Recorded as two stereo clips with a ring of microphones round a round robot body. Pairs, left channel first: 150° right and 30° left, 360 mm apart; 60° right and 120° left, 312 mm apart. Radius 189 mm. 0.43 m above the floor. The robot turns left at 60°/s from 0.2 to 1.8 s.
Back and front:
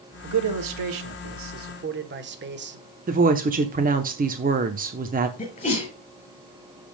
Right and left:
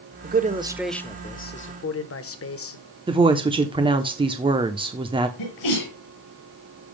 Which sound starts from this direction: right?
A sneeze, at 5.4 s.